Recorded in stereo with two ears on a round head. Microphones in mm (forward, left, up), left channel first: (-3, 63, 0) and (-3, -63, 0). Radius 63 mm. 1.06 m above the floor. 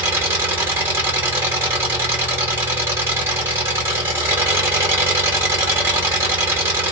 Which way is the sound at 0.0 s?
15° right (ahead or behind).